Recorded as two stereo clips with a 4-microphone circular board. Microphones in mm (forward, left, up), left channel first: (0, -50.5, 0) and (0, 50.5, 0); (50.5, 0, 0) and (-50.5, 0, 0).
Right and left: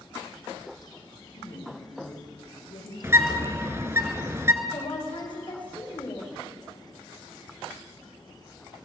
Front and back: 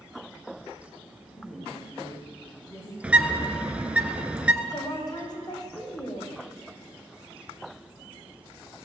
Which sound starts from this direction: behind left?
A bird, at 3.0 s.